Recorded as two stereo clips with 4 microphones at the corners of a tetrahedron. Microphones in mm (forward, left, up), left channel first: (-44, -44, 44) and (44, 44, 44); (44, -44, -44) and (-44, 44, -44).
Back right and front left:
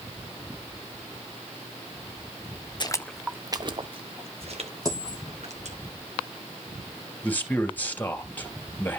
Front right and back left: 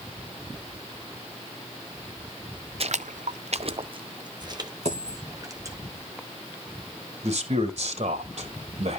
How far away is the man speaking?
About 3 m.